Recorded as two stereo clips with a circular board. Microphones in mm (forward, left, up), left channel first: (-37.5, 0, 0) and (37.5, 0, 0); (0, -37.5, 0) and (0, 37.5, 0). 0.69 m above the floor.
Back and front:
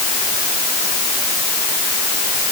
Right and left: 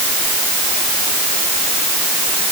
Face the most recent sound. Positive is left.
No sound to turn to.